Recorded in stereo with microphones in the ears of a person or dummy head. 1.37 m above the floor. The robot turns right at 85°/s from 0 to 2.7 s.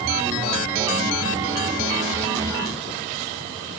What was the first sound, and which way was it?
Only background noise.